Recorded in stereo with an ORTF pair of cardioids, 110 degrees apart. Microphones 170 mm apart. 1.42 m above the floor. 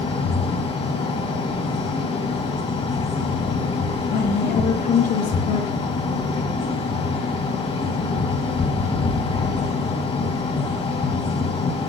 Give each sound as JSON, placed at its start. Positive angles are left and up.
{"t": 0.0, "sound": "a fan", "azimuth_deg": 40, "distance_m": 2.0}
{"t": 4.1, "sound": "a woman speaking", "azimuth_deg": 60, "distance_m": 4.0}